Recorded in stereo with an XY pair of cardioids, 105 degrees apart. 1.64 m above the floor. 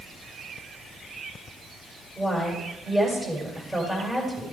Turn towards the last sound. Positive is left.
turn(degrees=-10)